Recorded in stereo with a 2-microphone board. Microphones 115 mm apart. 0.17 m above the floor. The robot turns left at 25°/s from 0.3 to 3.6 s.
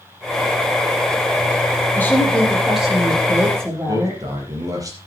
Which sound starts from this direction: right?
A man speaking, at 3.9 s.